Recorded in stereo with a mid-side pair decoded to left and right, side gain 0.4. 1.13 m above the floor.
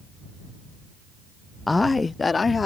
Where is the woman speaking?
20° left; by 2.7 s 40° left.